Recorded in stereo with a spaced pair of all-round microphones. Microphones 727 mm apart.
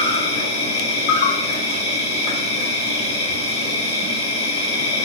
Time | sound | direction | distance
0.0 | an insect | 70° left (ahead or behind) | 1.5 m